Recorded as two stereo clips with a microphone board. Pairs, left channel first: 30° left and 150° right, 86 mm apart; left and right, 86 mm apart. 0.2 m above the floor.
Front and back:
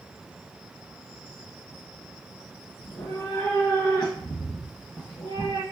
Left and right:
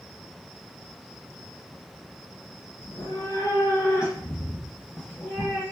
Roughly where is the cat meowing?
Left.